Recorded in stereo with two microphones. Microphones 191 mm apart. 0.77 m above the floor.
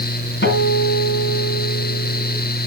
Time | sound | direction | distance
0.4 | a guitar | 80° left | 2.5 m